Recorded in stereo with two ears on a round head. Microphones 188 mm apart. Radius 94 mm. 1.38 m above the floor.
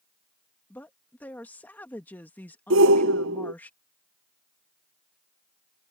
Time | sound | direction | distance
0.7 | a woman speaking | 10° left (ahead or behind) | ?
2.7 | a shout | 70° right (ahead or behind) | ?